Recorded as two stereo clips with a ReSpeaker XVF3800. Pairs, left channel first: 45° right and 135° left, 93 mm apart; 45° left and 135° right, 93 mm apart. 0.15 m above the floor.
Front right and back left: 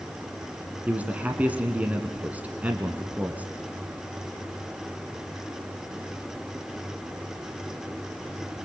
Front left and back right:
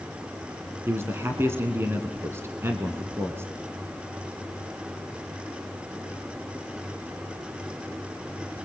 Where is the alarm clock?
I don't hear an alarm clock.